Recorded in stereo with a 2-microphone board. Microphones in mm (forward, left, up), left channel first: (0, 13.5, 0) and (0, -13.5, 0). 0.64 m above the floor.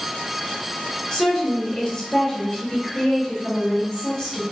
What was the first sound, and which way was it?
A woman speaking, 30° left (ahead or behind).